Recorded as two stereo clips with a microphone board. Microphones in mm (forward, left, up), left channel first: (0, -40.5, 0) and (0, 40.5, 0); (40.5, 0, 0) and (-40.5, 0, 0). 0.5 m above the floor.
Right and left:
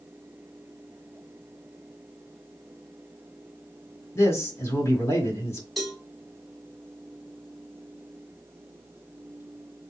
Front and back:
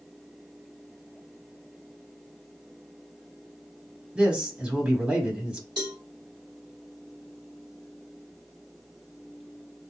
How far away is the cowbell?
About 1.5 m.